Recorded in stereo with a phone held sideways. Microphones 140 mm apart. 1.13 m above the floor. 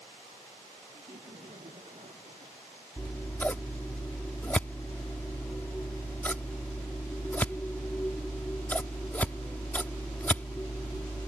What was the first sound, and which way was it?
Laughter, 50° right (ahead or behind).